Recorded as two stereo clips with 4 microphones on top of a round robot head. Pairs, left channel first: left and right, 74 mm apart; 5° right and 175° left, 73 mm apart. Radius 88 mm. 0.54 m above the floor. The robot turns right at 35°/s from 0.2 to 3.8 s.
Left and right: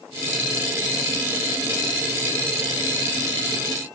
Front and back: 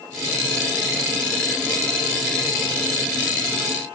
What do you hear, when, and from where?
Only background noise.